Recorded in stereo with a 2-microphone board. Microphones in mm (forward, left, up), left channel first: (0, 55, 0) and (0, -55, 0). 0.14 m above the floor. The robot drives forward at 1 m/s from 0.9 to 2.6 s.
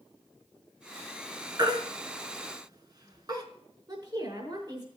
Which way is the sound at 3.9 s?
40° right (ahead or behind).